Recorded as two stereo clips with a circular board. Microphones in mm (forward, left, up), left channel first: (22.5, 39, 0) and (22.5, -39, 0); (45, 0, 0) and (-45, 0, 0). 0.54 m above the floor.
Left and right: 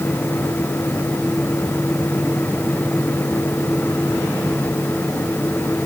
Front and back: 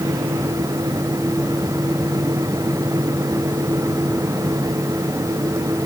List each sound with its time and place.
Only background noise.